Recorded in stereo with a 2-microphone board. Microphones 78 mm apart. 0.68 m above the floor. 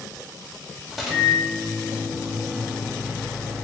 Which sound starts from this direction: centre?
A microwave, at 0.9 s.